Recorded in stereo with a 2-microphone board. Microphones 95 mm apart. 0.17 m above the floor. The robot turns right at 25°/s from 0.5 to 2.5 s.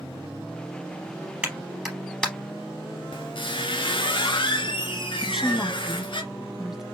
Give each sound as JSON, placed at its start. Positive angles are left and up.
{"t": 1.4, "sound": "a clap", "side_deg": -15, "distance_m": 3.0}
{"t": 3.1, "sound": "a squeak", "side_deg": 60, "distance_m": 1.6}
{"t": 5.2, "sound": "a woman speaking", "side_deg": -5, "distance_m": 1.1}